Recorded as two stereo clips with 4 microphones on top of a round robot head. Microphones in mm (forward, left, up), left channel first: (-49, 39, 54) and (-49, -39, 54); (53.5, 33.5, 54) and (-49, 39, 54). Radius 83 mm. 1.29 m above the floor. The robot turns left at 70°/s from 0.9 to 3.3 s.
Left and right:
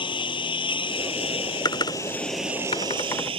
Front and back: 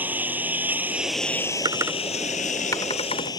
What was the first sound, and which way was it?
A lawn mower, 105° left.